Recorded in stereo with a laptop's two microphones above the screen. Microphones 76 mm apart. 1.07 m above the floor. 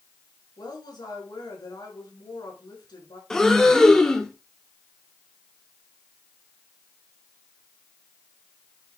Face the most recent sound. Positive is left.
turn(degrees=10)  # may be behind; listen again after turning